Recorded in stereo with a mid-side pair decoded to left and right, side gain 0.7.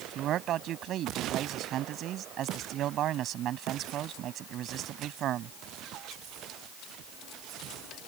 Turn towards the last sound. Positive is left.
turn(degrees=-50)